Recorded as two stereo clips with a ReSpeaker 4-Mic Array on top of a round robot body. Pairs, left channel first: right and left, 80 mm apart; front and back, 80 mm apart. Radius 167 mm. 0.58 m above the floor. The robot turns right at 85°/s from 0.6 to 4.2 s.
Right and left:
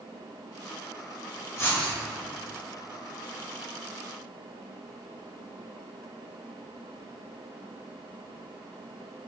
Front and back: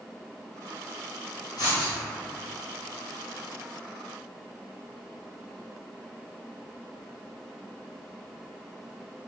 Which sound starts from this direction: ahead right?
Writing, at 1.6 s.